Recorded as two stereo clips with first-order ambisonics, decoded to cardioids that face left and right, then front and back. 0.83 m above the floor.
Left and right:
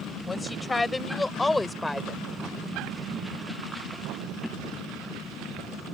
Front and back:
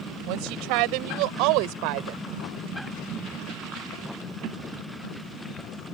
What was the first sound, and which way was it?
A woman speaking, 170° left.